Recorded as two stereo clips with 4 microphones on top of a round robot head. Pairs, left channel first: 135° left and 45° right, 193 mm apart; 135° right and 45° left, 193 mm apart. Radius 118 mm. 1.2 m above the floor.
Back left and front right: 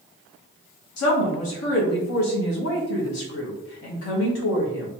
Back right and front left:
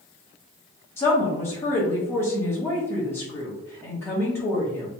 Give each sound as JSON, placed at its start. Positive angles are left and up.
{"t": 1.0, "sound": "a woman speaking", "azimuth_deg": 145, "distance_m": 1.0}